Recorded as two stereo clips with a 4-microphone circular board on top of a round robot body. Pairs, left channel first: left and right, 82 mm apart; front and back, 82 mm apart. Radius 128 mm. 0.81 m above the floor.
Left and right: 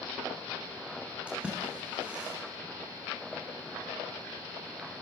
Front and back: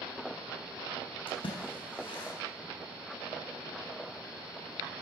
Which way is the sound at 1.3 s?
15° right.